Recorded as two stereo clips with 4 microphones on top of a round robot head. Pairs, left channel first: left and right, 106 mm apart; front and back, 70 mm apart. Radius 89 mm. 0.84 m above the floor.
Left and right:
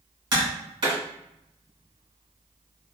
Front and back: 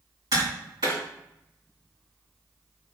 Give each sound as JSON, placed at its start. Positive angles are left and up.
{"t": 0.3, "sound": "tapping", "azimuth_deg": -140, "distance_m": 1.8}